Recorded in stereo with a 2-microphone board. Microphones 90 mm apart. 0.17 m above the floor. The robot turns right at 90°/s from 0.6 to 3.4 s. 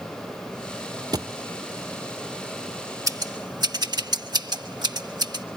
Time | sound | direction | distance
1.1 | a thud | 45° right (ahead or behind) | 0.5 m
3.1 | scissors | 40° right (ahead or behind) | 1.0 m